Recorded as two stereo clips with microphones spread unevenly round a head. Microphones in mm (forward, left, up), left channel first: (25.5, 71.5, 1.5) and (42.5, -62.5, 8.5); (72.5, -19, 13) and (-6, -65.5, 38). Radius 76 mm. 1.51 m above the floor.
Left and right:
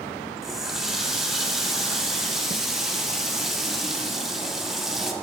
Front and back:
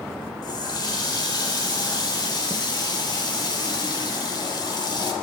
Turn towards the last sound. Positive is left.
turn(degrees=0)